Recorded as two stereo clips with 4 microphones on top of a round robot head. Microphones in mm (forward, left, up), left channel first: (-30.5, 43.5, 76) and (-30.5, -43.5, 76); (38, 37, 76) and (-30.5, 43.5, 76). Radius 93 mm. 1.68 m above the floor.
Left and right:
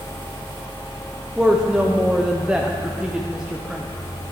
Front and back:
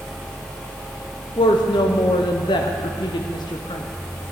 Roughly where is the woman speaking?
Ahead.